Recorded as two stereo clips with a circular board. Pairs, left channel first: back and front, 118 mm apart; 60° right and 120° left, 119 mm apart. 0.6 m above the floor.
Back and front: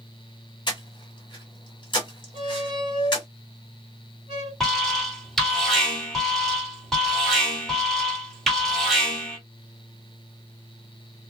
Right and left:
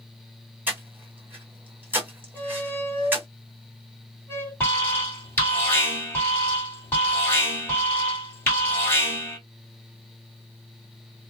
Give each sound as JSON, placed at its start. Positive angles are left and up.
{"t": 0.7, "sound": "breathing", "azimuth_deg": -175, "distance_m": 1.5}
{"t": 2.3, "sound": "a squeak", "azimuth_deg": 10, "distance_m": 1.5}
{"t": 4.6, "sound": "an alarm", "azimuth_deg": -95, "distance_m": 1.7}